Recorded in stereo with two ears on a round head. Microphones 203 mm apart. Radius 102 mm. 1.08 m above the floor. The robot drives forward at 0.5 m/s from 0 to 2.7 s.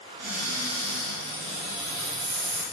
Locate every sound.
0.2 s a cupboard door: 85° right, 2 m; by 2.6 s 60° right (ahead or behind), 2.5 m